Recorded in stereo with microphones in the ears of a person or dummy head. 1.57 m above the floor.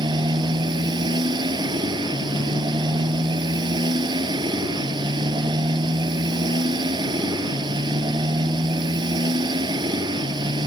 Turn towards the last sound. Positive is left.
turn(degrees=-25)  # may be behind; listen again after turning